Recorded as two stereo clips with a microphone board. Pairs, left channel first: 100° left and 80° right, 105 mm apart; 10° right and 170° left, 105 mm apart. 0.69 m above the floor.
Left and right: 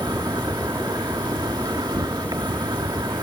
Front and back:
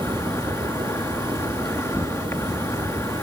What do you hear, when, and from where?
0.0 s an insect: 65° right